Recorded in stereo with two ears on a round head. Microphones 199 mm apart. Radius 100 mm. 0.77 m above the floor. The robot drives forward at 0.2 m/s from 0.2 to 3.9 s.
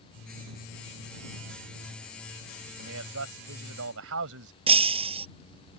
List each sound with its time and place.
2.8 s a man speaking: 70° right (ahead or behind)
4.7 s breaking glass: 25° right (ahead or behind)